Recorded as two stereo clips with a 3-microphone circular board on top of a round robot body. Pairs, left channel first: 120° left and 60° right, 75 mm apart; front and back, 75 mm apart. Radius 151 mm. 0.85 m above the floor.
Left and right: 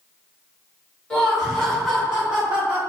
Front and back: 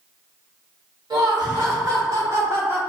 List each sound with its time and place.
1.1 s laughter: 165° right, 1.9 m; by 2.8 s 120° right, 1.4 m